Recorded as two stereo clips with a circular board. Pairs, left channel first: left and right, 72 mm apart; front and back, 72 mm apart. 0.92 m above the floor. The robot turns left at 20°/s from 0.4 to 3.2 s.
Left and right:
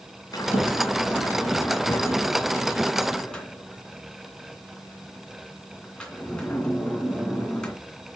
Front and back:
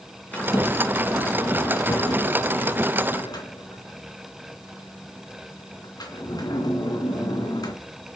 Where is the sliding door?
70° left, 2.5 m; by 7.7 s 10° left, 2.5 m.